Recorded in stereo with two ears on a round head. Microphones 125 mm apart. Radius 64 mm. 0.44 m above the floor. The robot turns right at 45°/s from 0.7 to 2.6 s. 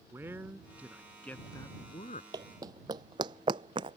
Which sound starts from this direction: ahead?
A man speaking, at 0.1 s.